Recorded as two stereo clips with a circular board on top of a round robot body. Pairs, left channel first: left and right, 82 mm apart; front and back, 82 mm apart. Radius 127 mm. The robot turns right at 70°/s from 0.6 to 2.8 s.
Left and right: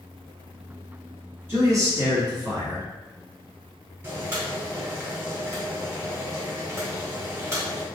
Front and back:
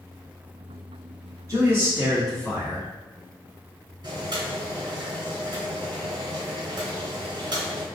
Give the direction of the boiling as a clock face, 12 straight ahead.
5 o'clock.